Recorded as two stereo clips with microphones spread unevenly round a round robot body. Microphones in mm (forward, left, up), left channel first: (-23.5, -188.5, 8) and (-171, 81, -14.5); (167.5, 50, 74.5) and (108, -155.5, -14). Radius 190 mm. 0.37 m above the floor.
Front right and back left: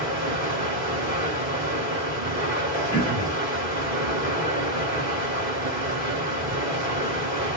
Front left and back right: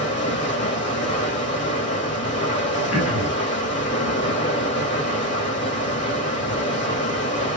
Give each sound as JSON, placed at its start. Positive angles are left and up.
{"t": 0.0, "sound": "running water", "azimuth_deg": 45, "distance_m": 1.9}
{"t": 2.9, "sound": "throat clearing", "azimuth_deg": 15, "distance_m": 1.6}